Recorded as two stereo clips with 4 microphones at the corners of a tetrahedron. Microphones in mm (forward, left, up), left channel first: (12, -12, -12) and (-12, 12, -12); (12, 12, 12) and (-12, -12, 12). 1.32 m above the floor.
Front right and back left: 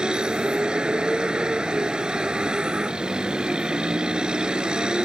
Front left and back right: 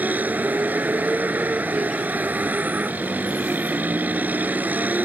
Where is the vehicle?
165° right.